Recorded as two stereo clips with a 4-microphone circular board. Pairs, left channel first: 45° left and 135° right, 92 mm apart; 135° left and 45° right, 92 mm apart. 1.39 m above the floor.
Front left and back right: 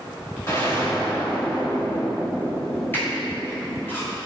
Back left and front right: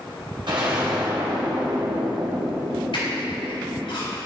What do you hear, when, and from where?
0.5 s an explosion: 15° right, 2 m
2.9 s a squeak: 110° left, 3.5 m